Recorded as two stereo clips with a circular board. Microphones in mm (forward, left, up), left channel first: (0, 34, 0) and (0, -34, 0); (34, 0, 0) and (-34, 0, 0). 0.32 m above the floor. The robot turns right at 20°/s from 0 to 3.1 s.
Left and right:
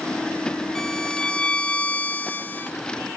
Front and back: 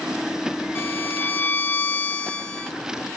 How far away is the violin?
About 0.9 m.